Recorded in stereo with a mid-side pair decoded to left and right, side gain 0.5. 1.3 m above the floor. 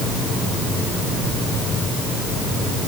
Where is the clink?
I don't hear a clink.